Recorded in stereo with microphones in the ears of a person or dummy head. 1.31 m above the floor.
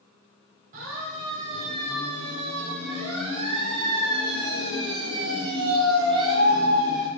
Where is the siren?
45° right (ahead or behind), 9.5 m; by 7.1 s 20° right (ahead or behind), 8 m.